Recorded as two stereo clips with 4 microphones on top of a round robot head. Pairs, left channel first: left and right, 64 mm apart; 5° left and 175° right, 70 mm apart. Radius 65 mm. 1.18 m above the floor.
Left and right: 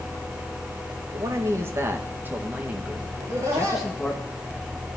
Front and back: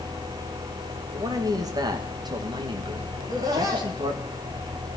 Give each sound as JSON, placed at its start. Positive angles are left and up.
{"t": 1.1, "sound": "a man speaking", "azimuth_deg": -135, "distance_m": 1.8}
{"t": 3.2, "sound": "laughter", "azimuth_deg": -135, "distance_m": 3.0}